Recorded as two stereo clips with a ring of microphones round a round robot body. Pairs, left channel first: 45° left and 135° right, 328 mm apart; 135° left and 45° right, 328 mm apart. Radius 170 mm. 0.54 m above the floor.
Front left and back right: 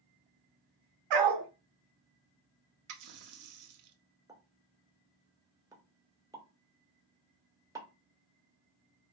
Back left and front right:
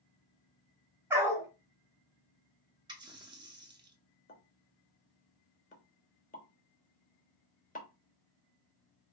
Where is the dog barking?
130° right, 1.6 m.